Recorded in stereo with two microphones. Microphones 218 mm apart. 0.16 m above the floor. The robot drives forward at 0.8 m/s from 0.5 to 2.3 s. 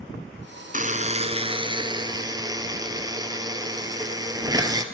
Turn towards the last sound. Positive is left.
turn(degrees=-15)  # may be behind; listen again after turning